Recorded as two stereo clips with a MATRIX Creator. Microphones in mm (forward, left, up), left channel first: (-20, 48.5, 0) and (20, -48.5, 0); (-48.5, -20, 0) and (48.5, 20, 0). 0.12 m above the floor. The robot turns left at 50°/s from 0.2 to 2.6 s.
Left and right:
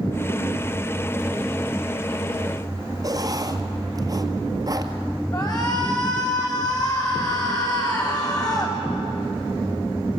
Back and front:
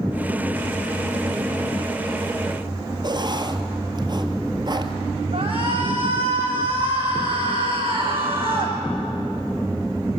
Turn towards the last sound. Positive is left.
turn(degrees=60)